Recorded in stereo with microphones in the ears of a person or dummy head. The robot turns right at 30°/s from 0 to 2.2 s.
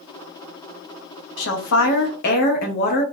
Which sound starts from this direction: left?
A woman speaking, at 1.4 s.